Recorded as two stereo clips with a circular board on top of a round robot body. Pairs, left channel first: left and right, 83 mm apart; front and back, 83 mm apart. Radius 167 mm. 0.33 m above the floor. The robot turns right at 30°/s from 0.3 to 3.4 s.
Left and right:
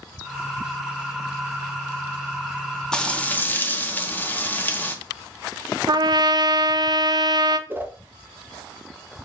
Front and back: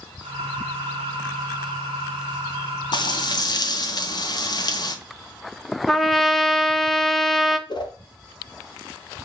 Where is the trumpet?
90° right, 0.6 m.